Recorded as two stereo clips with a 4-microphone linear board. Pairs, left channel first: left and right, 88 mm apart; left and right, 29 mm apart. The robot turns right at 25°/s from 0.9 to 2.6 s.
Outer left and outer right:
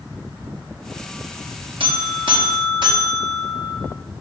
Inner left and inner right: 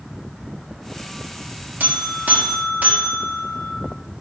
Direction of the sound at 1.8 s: 75° right (ahead or behind).